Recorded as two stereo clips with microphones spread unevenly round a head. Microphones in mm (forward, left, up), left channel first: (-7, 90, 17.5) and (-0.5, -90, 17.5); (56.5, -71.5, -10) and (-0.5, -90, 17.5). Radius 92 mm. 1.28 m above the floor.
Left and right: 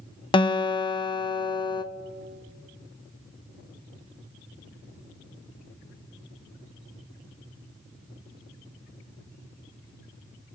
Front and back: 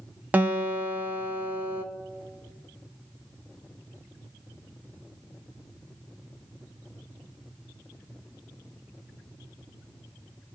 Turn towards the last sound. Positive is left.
turn(degrees=155)